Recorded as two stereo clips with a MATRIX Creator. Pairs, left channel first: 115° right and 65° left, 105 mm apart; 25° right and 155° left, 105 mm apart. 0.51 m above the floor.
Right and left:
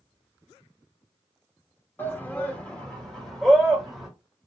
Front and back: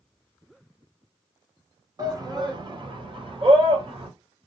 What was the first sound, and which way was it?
A shout, 175° right.